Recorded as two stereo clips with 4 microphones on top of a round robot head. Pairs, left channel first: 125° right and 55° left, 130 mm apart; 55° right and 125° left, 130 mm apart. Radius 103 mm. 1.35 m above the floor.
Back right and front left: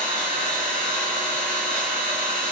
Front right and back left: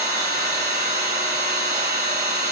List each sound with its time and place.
0.0 s an engine running: 65° left, 1.8 m